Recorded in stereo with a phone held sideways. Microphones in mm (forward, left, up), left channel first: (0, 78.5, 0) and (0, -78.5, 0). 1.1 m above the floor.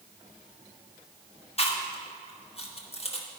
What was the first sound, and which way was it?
Chewing, 40° left (ahead or behind).